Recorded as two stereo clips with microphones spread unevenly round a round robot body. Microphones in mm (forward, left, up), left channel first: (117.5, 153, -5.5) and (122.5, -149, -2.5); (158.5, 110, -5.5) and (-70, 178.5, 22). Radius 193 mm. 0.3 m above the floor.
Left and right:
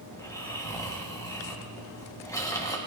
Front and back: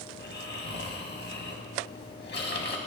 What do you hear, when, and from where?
0.1 s snoring: 15° left, 2 m